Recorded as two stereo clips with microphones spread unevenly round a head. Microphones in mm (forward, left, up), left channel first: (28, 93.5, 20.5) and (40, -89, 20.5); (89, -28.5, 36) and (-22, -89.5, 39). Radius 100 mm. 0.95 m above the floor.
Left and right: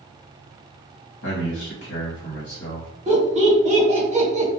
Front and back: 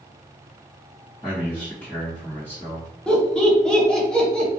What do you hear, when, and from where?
1.2 s a man speaking: 105° left, 1.4 m
3.1 s laughter: 50° right, 1.1 m